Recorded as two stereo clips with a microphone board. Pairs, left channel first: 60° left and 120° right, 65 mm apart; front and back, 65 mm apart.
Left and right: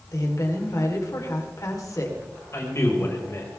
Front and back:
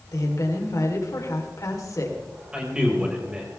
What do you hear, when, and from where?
0.1 s a woman speaking: 30° left, 4 m
2.5 s a man speaking: 105° left, 5.5 m